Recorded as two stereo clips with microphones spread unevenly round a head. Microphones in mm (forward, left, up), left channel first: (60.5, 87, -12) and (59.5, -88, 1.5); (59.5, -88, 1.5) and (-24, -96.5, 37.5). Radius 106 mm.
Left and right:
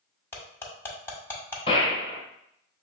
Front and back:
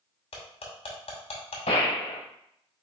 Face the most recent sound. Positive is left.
turn(degrees=30)